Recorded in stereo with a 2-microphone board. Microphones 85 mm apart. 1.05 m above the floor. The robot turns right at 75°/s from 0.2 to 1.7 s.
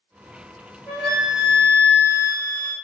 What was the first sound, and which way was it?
A flute, 5° right.